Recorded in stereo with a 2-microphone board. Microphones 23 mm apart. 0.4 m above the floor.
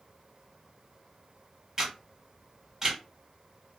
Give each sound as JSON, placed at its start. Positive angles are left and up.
{"t": 1.8, "sound": "a camera shutter", "side_deg": -15, "distance_m": 1.8}